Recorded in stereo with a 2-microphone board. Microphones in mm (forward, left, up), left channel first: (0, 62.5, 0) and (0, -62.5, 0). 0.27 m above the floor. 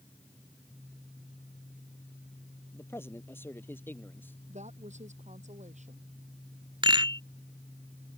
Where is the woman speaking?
70° right (ahead or behind).